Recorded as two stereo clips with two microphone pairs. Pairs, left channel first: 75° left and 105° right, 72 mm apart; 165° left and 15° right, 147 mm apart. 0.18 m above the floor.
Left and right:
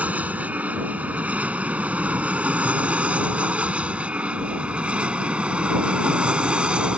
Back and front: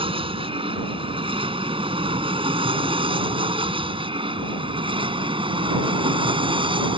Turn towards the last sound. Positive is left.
turn(degrees=-40)